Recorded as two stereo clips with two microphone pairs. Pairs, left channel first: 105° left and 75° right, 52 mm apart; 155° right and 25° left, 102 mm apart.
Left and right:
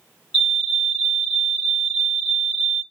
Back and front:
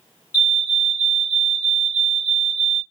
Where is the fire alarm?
60° left, 2 m.